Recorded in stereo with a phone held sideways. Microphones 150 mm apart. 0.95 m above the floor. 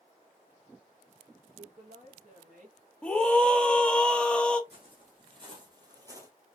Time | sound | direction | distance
1.6 | a woman speaking | 45° right (ahead or behind) | 1.0 m
3.0 | a scream | 5° left (ahead or behind) | 0.8 m
4.7 | footsteps | 35° right (ahead or behind) | 2.5 m